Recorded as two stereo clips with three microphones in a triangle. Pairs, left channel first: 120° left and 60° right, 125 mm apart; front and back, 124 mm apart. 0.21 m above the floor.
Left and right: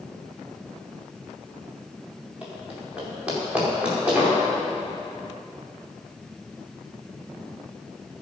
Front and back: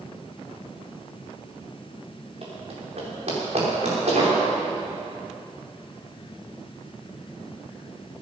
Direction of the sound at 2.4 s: 140° right.